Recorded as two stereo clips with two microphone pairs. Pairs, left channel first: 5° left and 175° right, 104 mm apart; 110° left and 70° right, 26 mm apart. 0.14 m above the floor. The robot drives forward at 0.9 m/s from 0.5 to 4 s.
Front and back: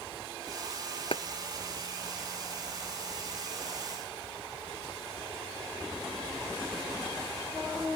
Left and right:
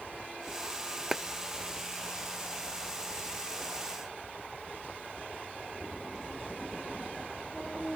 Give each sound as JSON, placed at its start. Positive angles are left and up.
{"t": 1.1, "sound": "a clap", "azimuth_deg": 0}